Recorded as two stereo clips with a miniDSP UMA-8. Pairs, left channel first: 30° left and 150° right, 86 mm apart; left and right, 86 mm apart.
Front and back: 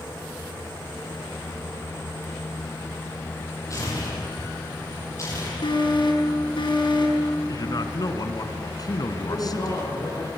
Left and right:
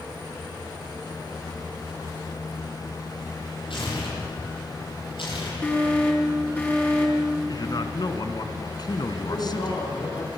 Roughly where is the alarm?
Ahead.